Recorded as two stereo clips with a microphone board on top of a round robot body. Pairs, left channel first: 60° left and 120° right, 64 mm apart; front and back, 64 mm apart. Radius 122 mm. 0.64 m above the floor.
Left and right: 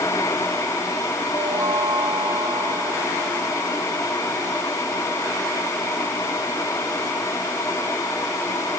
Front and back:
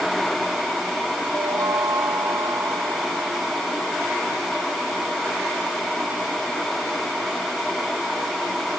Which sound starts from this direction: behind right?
A chime, at 1.3 s.